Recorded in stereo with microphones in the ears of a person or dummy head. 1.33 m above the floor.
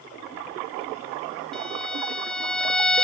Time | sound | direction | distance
1.5 | a violin | 5° left (ahead or behind) | ?